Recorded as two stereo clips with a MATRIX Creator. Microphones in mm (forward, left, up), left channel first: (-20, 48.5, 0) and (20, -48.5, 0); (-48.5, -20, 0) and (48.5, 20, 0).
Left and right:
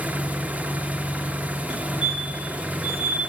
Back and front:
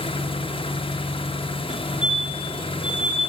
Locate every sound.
0.0 s an engine running: 140° right, 1.1 m
1.7 s a fire alarm: 60° right, 3.5 m